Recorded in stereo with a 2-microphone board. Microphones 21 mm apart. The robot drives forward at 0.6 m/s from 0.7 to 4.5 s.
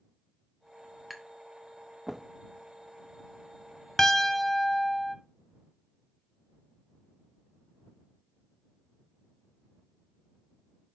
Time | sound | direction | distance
1.1 | tapping | 15° right (ahead or behind) | 1.2 m
4.0 | a piano | 25° left (ahead or behind) | 0.6 m